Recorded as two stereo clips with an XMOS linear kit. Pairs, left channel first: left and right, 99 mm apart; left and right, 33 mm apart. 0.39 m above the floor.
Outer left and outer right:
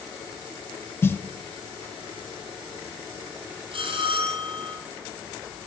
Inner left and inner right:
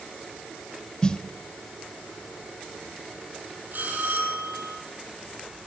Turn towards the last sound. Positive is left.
turn(degrees=-65)  # may be behind; listen again after turning